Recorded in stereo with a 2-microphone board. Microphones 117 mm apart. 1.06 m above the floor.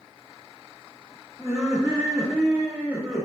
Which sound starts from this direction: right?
Laughter, at 1.4 s.